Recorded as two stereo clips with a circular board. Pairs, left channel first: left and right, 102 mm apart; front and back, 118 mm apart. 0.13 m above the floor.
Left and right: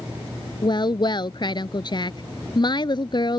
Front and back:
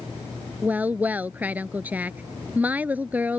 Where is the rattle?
No rattle in this recording.